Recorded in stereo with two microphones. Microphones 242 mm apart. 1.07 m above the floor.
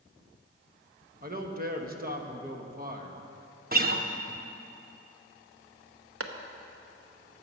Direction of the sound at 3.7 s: 35° right (ahead or behind).